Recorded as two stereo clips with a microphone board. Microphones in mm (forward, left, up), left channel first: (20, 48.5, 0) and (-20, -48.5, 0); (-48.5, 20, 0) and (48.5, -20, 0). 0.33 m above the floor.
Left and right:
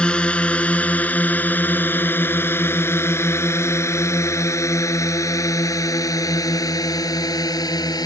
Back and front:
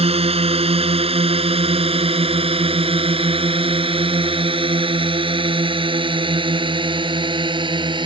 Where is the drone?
10° right; by 8.1 s 15° left.